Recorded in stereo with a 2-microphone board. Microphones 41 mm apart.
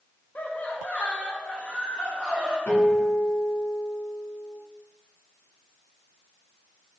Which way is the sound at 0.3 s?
45° left (ahead or behind).